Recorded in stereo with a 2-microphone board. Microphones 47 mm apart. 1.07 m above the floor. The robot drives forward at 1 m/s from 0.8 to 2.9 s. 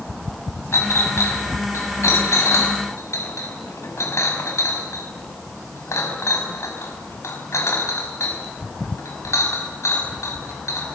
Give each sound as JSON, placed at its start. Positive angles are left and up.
{"t": 0.7, "sound": "a clink", "side_deg": 70, "distance_m": 5.0}